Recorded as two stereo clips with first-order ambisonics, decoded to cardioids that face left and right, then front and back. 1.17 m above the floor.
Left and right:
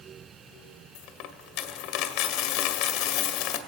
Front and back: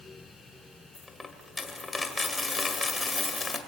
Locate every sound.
0.9 s a dropped coin: 80° left, 1.9 m